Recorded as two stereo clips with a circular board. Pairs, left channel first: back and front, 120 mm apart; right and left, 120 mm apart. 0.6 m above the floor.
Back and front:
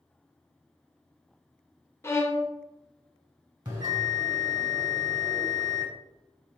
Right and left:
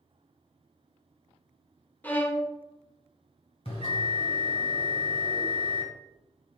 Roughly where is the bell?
Ahead right.